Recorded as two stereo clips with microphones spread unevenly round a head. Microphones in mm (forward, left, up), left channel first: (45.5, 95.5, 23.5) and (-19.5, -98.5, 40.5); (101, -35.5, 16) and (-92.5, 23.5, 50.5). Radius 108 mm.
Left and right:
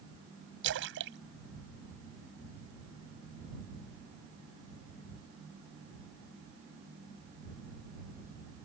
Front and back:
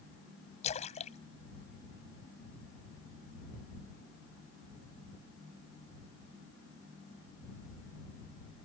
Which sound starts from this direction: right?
A splash, at 0.6 s.